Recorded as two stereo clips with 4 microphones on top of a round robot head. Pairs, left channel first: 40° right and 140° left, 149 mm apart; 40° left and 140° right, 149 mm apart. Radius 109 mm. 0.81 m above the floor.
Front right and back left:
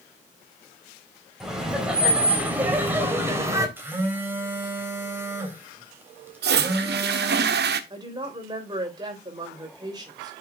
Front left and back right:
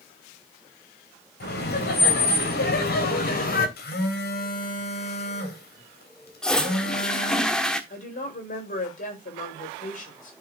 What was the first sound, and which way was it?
Laughter, 50° left.